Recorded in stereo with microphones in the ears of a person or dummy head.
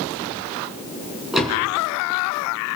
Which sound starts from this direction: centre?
A door slam, at 1.3 s.